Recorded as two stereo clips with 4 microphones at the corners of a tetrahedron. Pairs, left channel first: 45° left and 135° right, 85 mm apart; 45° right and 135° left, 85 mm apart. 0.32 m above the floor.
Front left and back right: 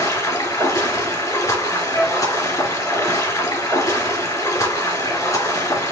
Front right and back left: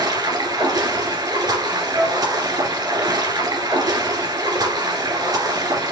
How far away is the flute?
About 2 m.